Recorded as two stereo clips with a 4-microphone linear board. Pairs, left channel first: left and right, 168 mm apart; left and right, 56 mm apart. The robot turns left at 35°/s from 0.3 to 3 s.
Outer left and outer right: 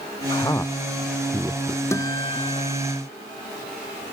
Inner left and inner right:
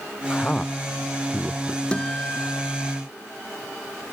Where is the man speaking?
25° left (ahead or behind); by 1.8 s 25° right (ahead or behind).